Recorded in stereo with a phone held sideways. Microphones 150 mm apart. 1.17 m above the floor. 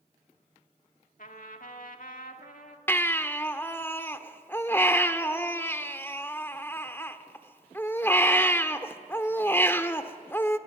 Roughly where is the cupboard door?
I don't hear a cupboard door.